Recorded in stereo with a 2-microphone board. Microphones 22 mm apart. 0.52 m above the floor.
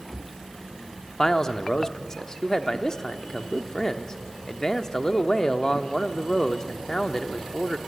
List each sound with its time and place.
1.2 s a man speaking: 30° left (ahead or behind), 0.9 m